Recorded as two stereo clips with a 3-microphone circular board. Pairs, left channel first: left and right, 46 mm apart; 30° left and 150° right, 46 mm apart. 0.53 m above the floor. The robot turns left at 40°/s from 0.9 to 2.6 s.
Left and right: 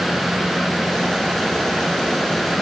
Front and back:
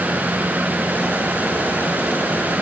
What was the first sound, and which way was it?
Only background noise.